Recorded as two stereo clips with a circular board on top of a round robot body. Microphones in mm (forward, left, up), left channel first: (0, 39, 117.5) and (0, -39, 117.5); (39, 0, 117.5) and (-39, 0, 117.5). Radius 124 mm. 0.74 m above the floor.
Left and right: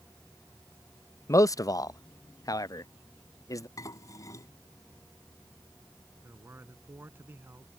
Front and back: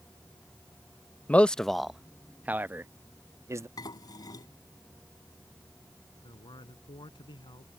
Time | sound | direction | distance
1.3 | a man speaking | 65° left | ?
3.8 | dishes clattering | 40° left | ?
6.2 | a man speaking | 30° right | ?